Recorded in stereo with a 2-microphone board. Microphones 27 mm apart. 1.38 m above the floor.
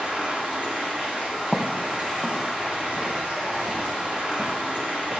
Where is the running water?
85° right, 7.5 m.